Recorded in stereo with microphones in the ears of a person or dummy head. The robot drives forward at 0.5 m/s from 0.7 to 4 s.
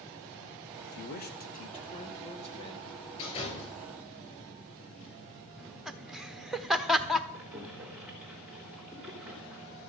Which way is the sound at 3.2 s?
35° left (ahead or behind).